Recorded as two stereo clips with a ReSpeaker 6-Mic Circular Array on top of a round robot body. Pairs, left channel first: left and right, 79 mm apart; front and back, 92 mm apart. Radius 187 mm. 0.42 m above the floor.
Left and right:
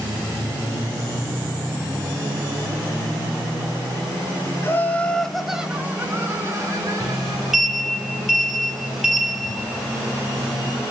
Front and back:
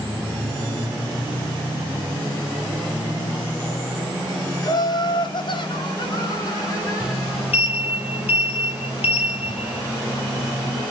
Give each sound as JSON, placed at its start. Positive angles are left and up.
{"t": 4.6, "sound": "laughter", "azimuth_deg": 35, "distance_m": 1.8}
{"t": 7.0, "sound": "a sliding door", "azimuth_deg": -5, "distance_m": 4.0}